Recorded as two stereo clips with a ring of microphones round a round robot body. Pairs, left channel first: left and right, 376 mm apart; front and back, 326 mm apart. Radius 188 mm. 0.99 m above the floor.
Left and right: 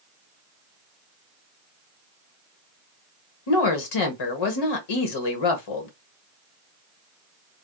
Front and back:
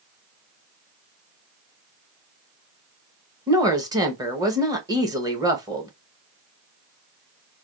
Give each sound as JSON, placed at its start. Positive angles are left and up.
{"t": 3.5, "sound": "a woman speaking", "azimuth_deg": 100, "distance_m": 1.0}